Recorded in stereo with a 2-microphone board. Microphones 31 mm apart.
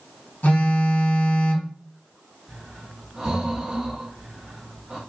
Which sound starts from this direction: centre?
Breathing, at 2.5 s.